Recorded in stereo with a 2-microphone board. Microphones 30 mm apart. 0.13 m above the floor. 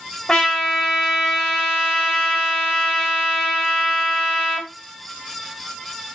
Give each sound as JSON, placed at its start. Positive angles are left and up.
{"t": 0.3, "sound": "a trumpet", "side_deg": 15, "distance_m": 3.5}